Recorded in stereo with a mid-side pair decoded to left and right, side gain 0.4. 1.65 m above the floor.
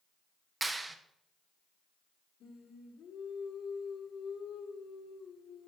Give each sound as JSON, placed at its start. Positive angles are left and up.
{"t": 0.6, "sound": "a clap", "azimuth_deg": -25, "distance_m": 1.1}
{"t": 2.4, "sound": "singing", "azimuth_deg": 70, "distance_m": 2.0}